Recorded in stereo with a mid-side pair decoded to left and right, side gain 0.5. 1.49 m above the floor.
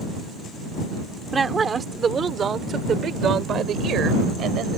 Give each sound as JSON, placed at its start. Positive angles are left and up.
{"t": 1.3, "sound": "a woman speaking", "azimuth_deg": -30}